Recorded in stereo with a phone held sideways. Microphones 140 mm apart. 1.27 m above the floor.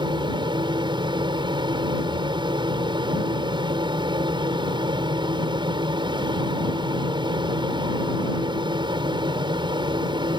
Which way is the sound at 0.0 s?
35° right (ahead or behind).